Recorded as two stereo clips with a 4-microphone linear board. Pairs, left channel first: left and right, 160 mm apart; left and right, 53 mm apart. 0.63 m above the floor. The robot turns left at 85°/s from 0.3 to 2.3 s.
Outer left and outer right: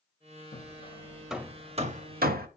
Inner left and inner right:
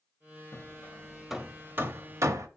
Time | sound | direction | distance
0.5 | hammering | 60° left (ahead or behind) | 0.7 m